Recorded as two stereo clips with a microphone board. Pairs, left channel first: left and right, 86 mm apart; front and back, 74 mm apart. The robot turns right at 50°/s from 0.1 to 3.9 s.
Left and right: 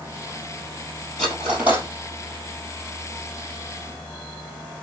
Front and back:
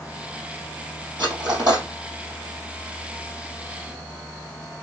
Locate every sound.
1.2 s cutlery clinking: 175° left, 2.5 m; by 1.9 s 150° right, 2.5 m